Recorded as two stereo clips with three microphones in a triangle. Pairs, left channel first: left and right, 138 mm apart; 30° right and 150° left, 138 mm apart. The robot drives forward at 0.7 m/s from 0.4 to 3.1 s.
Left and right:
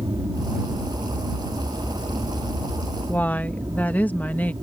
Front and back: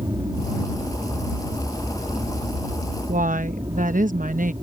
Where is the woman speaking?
170° left.